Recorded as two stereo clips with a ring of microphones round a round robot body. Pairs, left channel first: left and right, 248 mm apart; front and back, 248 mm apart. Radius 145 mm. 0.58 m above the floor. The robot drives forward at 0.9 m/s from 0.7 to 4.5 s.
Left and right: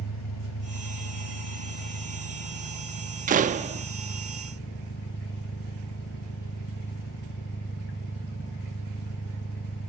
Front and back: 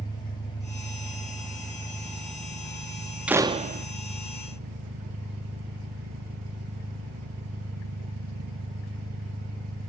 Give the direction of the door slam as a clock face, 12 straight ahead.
3 o'clock.